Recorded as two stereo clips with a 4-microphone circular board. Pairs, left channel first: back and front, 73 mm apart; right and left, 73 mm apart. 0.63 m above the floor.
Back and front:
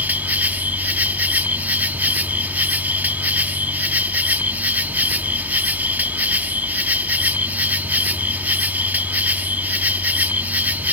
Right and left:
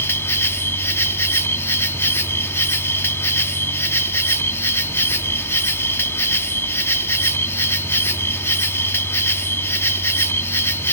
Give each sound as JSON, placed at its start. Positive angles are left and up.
{"t": 0.0, "sound": "an insect", "azimuth_deg": -55}